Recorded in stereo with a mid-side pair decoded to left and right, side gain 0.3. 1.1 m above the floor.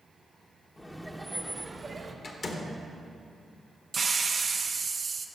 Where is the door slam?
65° left, 1.0 m.